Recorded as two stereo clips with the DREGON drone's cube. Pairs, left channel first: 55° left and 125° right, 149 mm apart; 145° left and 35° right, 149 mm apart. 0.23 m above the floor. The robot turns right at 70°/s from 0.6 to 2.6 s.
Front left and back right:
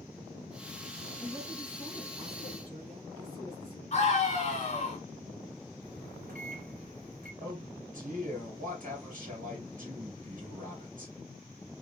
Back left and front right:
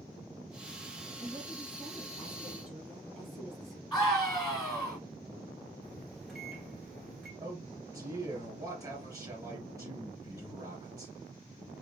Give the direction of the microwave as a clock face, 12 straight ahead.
4 o'clock.